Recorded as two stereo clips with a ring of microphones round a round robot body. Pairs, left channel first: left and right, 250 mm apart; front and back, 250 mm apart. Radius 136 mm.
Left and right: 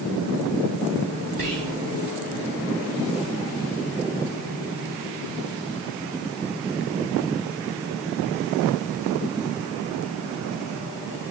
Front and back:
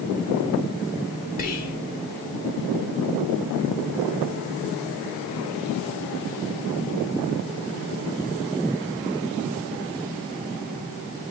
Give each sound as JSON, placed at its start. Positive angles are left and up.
{"t": 1.4, "sound": "whispering", "azimuth_deg": -30, "distance_m": 1.0}